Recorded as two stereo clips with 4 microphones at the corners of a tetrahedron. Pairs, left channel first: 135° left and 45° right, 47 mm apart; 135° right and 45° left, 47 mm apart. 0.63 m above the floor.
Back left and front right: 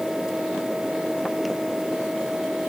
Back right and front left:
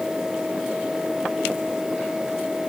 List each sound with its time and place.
Only background noise.